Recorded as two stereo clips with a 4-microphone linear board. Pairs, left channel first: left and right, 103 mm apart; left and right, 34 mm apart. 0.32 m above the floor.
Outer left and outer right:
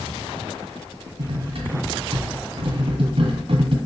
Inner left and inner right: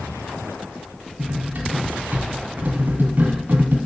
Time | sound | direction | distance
1.2 | cutlery clinking | 60° right (ahead or behind) | 1.7 m